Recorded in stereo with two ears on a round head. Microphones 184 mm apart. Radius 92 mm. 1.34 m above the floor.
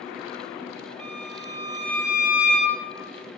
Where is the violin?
80° right, 2.5 m.